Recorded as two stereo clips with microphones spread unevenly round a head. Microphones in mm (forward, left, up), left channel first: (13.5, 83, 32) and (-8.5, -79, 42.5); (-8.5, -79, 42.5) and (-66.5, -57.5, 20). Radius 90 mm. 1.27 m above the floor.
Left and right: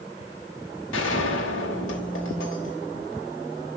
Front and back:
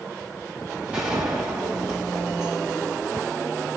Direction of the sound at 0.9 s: 80° left.